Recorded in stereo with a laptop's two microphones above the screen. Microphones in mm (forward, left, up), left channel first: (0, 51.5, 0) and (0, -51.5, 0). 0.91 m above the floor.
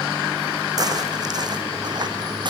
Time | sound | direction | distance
0.8 | footsteps | 40° right (ahead or behind) | 3.5 m